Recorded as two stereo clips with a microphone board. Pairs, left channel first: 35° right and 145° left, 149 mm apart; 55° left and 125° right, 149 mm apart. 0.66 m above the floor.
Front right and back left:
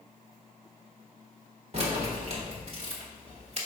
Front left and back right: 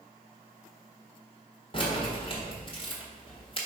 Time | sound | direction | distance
1.7 | keys jangling | 105° left | 1.5 m